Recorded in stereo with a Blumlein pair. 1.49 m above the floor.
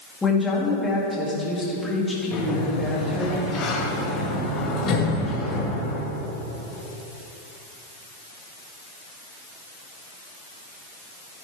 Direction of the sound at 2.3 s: 25° left.